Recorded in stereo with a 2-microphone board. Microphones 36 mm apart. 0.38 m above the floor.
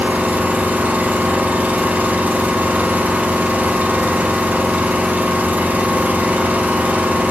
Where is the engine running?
55° right (ahead or behind), 0.9 m.